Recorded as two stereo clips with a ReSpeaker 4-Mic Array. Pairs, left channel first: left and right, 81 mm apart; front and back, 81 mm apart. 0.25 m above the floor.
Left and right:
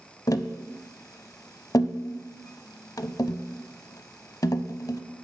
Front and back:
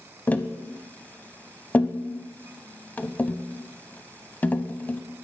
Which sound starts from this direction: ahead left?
Tapping, at 0.3 s.